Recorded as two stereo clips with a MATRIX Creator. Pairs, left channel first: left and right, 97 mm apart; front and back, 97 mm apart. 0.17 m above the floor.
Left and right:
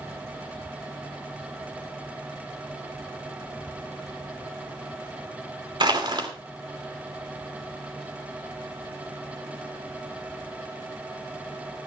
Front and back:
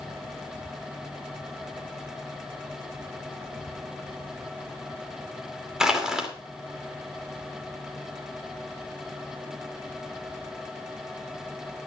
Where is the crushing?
95° right, 2.5 m.